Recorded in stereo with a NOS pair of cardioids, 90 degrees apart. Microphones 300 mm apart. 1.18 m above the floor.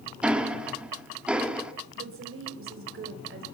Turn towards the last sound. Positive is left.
turn(degrees=-45)